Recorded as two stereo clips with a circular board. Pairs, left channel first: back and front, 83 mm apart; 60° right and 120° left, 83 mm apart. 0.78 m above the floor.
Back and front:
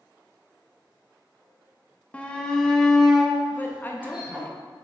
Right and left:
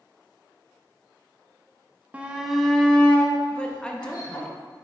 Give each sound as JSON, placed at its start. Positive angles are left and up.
{"t": 2.1, "sound": "a shout", "azimuth_deg": 150, "distance_m": 0.8}
{"t": 3.5, "sound": "a woman speaking", "azimuth_deg": -130, "distance_m": 0.8}